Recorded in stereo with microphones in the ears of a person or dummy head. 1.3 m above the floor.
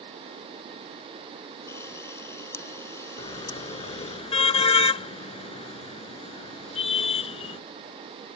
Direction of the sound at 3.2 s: 30° left (ahead or behind).